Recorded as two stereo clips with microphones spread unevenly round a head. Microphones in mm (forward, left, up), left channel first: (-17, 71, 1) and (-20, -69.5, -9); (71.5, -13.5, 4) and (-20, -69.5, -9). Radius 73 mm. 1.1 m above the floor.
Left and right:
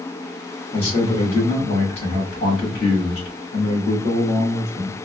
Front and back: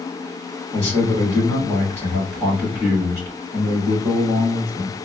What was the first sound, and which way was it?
A man speaking, 140° left.